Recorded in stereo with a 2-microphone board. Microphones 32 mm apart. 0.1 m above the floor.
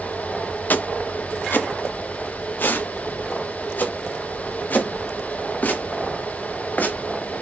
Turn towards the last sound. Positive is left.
turn(degrees=60)  # may be behind; listen again after turning